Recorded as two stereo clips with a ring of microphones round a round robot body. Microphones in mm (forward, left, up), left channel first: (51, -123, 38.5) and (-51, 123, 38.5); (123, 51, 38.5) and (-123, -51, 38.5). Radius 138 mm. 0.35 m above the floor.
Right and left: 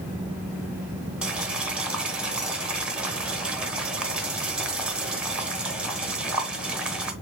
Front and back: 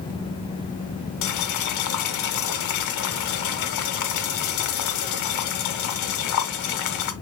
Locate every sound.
1.2 s boiling: 25° left, 1.1 m